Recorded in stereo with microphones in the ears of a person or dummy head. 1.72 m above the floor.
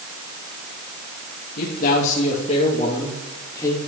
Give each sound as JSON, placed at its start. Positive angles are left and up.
{"t": 1.6, "sound": "a man speaking", "side_deg": 55, "distance_m": 2.5}